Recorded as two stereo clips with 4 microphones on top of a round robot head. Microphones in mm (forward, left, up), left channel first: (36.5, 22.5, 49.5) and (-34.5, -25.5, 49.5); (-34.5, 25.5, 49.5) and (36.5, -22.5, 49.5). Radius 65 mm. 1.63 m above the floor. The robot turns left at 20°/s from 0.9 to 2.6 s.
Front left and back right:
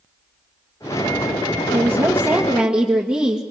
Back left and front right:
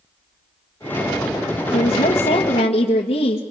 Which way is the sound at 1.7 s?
155° left.